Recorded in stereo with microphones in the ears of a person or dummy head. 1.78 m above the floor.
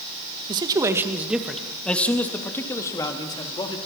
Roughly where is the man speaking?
Right.